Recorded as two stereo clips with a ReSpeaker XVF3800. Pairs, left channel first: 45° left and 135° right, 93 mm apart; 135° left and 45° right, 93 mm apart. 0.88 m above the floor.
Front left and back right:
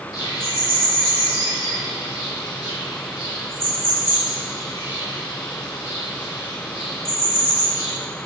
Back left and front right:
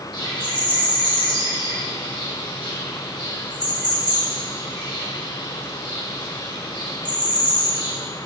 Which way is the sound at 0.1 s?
95° left.